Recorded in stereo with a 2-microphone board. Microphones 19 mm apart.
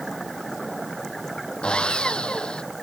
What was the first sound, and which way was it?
Sawing, 55° left (ahead or behind).